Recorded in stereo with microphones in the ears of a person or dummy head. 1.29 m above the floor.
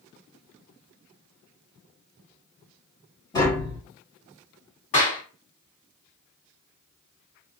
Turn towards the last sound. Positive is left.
turn(degrees=35)  # may be behind; listen again after turning